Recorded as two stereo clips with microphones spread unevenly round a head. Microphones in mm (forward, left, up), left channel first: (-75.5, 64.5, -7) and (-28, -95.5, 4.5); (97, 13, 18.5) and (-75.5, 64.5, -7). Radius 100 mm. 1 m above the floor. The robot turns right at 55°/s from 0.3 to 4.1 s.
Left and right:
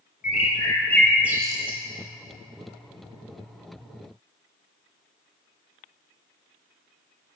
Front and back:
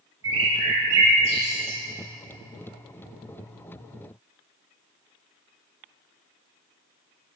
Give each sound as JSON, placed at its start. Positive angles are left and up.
{"t": 0.2, "sound": "a bird", "azimuth_deg": 155, "distance_m": 1.9}